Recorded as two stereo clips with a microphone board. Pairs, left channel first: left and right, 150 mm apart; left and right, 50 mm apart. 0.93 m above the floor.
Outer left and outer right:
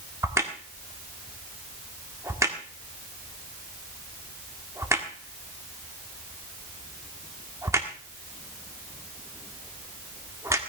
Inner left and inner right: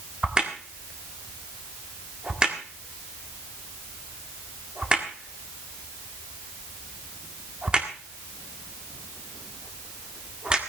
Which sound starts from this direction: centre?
A crack, at 0.2 s.